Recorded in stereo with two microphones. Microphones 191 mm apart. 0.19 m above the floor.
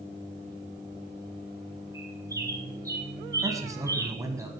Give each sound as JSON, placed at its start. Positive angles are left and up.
{"t": 1.9, "sound": "a bird", "side_deg": -15, "distance_m": 2.5}
{"t": 3.4, "sound": "a man speaking", "side_deg": -15, "distance_m": 1.2}